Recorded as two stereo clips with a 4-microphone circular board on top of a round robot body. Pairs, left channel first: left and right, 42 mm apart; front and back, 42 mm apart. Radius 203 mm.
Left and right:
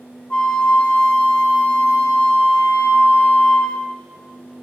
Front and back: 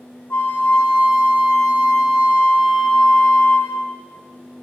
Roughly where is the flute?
Ahead left.